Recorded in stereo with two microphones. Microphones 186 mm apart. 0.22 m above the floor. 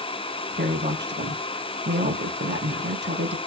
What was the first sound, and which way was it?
A woman speaking, 70° right (ahead or behind).